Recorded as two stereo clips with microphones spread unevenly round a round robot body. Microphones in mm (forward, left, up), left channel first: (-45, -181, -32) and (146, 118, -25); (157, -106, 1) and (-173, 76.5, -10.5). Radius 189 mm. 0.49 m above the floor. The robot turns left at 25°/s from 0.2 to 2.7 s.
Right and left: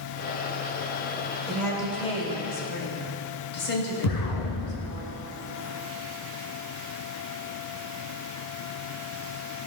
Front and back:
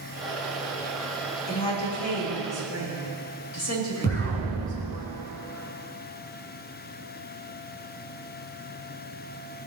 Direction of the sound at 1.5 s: 35° right.